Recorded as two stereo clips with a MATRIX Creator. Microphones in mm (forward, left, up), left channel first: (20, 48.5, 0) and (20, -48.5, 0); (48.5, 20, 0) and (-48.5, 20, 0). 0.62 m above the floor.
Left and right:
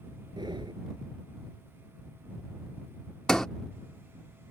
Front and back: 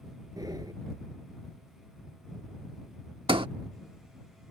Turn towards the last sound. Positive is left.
turn(degrees=175)